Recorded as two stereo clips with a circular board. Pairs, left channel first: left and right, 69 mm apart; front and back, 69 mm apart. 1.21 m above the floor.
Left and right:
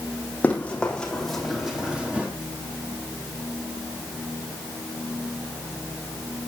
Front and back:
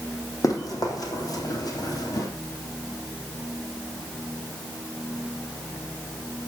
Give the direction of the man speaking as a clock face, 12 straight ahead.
No man speaking in this recording.